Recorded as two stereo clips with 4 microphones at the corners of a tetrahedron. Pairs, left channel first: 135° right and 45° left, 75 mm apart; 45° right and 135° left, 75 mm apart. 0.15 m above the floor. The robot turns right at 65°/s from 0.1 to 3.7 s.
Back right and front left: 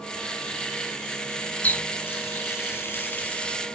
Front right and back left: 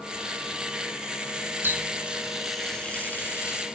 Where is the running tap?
170° left, 0.8 m; by 3.6 s 60° right, 0.8 m.